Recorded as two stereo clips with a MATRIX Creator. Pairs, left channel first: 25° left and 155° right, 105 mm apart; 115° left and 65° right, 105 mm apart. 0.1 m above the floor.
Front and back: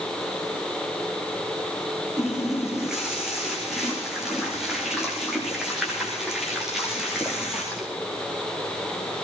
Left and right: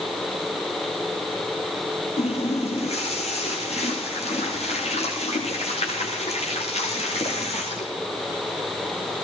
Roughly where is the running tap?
Behind left.